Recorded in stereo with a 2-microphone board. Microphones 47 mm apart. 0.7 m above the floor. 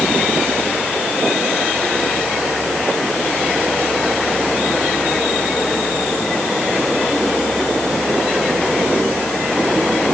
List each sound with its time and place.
Only background noise.